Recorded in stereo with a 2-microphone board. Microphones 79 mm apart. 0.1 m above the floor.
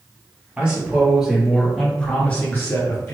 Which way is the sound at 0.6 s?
15° right (ahead or behind).